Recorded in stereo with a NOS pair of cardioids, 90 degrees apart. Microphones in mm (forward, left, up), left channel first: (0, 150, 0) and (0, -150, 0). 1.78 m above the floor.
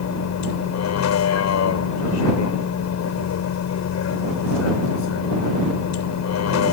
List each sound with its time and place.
0.0 s a vehicle: 65° left